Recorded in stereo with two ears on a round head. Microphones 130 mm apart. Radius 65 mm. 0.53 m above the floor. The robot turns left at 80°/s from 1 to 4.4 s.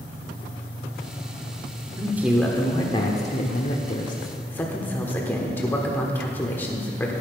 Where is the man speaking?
150° right, 1.2 m; by 7.1 s 20° left, 1.2 m.